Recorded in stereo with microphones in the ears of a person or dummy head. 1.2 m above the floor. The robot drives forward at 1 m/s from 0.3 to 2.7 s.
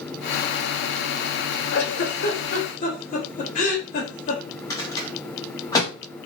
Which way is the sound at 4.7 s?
15° left (ahead or behind).